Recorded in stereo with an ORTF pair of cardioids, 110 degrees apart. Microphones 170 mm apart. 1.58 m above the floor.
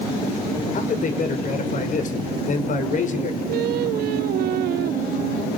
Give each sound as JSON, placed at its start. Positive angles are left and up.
{"t": 0.7, "sound": "a man speaking", "azimuth_deg": 50, "distance_m": 5.5}
{"t": 3.5, "sound": "singing", "azimuth_deg": -65, "distance_m": 1.4}